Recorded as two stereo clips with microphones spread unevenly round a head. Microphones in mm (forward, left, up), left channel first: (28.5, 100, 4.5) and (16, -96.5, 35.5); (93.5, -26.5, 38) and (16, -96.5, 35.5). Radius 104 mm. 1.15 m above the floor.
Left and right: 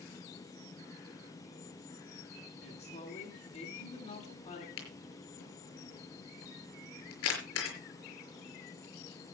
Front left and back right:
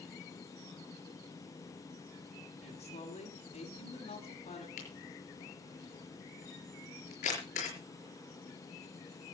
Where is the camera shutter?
70° left, 6 m.